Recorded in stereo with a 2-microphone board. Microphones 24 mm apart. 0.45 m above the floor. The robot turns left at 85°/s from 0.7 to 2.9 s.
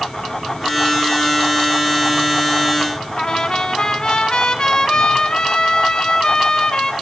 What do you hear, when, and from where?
3.2 s a trumpet: 30° left (ahead or behind), 1.4 m